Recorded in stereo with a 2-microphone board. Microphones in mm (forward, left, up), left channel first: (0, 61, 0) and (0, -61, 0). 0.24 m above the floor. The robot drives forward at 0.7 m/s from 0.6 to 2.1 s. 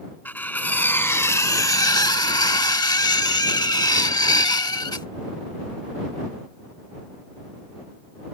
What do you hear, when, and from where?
0.2 s cutlery clinking: 15° left (ahead or behind); by 5.1 s 30° left (ahead or behind)